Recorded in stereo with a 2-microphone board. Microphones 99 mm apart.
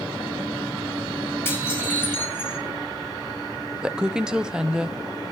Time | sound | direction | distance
1.4 | dishes clattering | 20° left (ahead or behind) | 5 m
3.8 | a woman speaking | 10° right (ahead or behind) | 0.6 m